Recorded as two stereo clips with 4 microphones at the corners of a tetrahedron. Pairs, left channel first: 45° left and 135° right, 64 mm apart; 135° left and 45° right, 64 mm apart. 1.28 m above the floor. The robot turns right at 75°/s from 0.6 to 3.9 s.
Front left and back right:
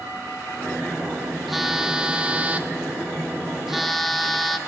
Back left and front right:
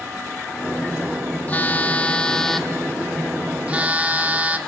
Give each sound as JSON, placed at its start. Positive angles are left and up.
{"t": 1.5, "sound": "a phone buzzing", "azimuth_deg": 135, "distance_m": 0.9}